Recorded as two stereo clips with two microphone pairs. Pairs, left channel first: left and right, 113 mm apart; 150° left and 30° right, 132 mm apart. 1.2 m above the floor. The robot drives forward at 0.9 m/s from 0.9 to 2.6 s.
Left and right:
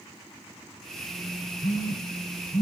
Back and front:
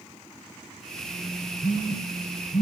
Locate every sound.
1.6 s a phone buzzing: 120° left, 1.1 m; by 2.6 s 155° left, 1.6 m